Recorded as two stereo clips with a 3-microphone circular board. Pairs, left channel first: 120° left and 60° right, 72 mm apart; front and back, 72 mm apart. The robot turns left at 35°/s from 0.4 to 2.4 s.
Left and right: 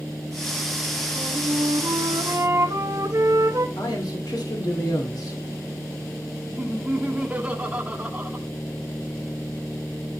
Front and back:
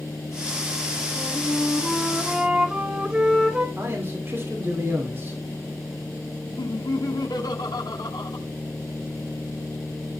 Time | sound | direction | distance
1.2 | a flute | 55° right | 1.1 m
3.8 | a man speaking | 125° left | 2.5 m
6.6 | laughter | 10° left | 1.5 m